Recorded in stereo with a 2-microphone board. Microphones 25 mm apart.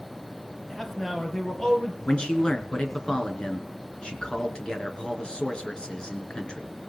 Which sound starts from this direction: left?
A man speaking, at 2.0 s.